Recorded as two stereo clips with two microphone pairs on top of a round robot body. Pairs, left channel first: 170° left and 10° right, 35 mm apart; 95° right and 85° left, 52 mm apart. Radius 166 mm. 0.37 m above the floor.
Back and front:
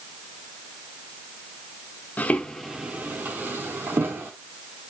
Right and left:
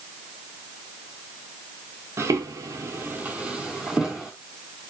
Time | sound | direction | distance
2.2 | footsteps | 120° left | 0.6 m